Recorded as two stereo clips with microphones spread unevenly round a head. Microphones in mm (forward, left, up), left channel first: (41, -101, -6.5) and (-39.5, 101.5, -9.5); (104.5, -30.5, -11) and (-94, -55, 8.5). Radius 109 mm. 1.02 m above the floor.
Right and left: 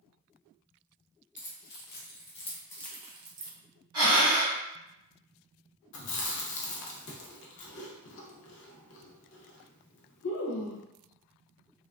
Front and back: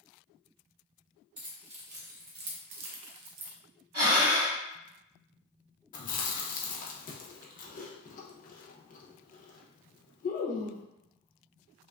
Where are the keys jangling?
110° right, 1.1 m; by 3.5 s 160° left, 0.5 m.